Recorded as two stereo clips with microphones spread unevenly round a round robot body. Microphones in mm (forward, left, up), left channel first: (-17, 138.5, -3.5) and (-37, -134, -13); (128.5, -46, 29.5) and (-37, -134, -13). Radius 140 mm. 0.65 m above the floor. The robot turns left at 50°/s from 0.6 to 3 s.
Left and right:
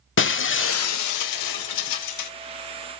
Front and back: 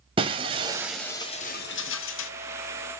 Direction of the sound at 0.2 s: 135° left.